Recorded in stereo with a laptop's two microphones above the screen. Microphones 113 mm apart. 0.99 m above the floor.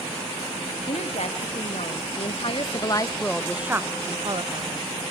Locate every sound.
0.9 s a woman speaking: 70° left (ahead or behind), 2 m; by 4.9 s 55° right (ahead or behind), 1.4 m